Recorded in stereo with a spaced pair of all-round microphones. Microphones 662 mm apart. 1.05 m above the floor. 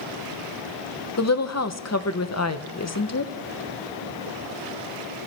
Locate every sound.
1.2 s a woman speaking: 25° left (ahead or behind), 0.6 m